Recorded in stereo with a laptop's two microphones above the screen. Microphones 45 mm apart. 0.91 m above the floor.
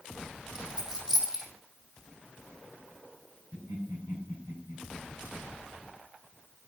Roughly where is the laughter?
Right.